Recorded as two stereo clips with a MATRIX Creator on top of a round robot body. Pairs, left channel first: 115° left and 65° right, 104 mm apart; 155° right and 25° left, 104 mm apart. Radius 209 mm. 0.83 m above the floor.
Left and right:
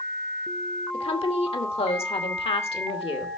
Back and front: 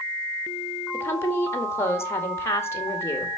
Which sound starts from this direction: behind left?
A woman speaking, at 0.9 s.